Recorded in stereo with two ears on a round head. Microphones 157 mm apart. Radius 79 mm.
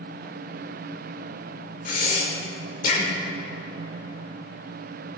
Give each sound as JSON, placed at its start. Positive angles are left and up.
{"t": 1.9, "sound": "breathing", "side_deg": 45, "distance_m": 1.4}